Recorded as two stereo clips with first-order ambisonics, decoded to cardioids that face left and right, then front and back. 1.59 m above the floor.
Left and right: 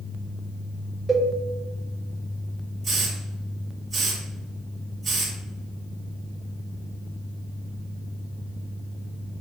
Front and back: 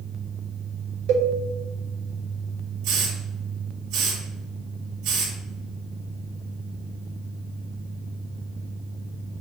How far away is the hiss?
About 3 m.